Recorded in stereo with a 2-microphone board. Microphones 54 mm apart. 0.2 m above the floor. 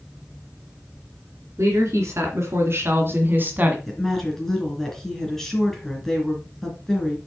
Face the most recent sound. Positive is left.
turn(degrees=5)  # may be behind; listen again after turning